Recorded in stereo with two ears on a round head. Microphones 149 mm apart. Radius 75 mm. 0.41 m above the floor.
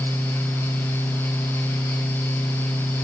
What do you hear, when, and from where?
Only background noise.